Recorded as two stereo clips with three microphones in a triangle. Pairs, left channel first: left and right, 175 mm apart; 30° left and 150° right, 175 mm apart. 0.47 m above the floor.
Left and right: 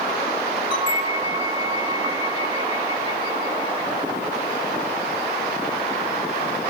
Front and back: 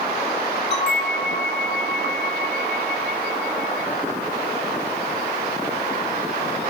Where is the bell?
25° left, 1.8 m.